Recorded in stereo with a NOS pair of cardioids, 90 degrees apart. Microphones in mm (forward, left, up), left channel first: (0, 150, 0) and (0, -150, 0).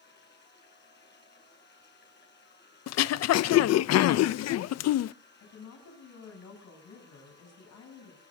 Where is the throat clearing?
60° left, 0.6 m.